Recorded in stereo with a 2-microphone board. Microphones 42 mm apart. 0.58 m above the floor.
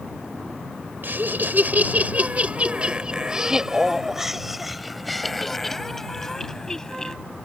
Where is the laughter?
55° right (ahead or behind); by 7.2 s 15° left (ahead or behind).